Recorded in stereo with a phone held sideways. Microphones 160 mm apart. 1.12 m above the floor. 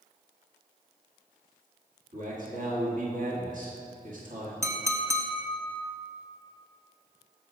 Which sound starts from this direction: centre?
A clink, at 4.6 s.